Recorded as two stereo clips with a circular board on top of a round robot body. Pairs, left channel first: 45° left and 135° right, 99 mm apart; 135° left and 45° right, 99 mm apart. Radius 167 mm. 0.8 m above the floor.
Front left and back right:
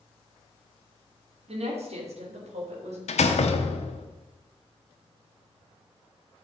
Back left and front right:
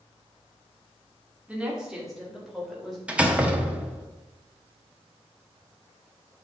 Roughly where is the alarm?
No alarm in this recording.